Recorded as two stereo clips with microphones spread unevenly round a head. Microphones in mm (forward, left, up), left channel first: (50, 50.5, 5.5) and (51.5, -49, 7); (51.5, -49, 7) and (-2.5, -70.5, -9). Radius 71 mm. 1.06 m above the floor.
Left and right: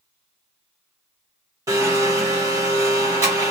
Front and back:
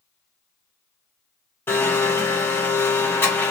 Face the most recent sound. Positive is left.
turn(degrees=-35)